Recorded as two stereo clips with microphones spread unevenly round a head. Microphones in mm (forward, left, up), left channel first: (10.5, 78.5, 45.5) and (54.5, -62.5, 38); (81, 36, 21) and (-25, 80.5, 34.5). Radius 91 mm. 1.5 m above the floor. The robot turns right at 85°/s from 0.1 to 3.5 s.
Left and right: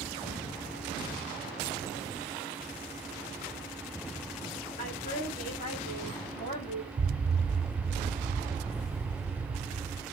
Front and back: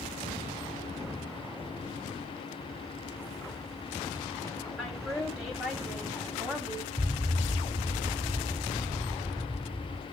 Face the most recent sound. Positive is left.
turn(degrees=-120)